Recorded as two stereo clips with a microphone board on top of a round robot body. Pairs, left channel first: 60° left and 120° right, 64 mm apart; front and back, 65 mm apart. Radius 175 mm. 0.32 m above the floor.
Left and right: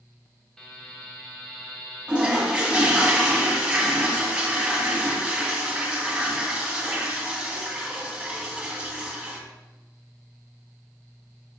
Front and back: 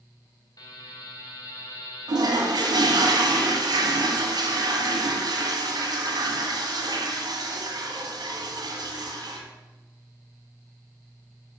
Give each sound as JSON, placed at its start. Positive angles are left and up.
{"t": 0.6, "sound": "a buzzer", "azimuth_deg": -25, "distance_m": 2.0}
{"t": 2.1, "sound": "a toilet flushing", "azimuth_deg": 165, "distance_m": 1.9}